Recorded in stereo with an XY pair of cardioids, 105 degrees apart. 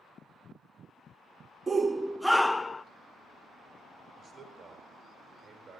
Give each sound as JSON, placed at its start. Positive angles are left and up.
{"t": 1.7, "sound": "a shout", "azimuth_deg": -30, "distance_m": 0.6}
{"t": 4.2, "sound": "a man speaking", "azimuth_deg": -60, "distance_m": 6.5}